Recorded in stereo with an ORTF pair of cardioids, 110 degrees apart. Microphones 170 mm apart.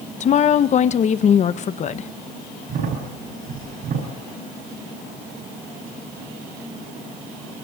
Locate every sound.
0.2 s a woman speaking: 45° left, 0.9 m
2.7 s a crack: 55° right, 4.5 m